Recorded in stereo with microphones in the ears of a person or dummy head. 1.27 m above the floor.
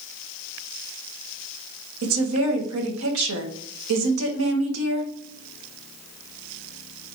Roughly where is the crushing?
I don't hear crushing.